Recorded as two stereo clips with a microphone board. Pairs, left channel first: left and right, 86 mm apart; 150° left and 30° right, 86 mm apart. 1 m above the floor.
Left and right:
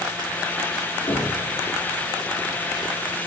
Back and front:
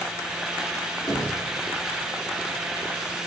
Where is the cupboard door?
100° left, 2.5 m.